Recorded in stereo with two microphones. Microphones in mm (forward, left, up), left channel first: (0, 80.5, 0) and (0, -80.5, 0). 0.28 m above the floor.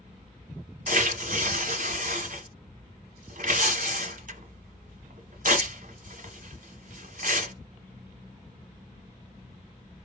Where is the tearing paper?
60° right (ahead or behind), 1.2 m.